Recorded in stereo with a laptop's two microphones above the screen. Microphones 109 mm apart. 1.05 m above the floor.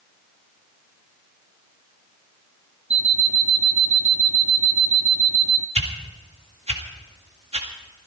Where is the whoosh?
75° right (ahead or behind), 1.9 m.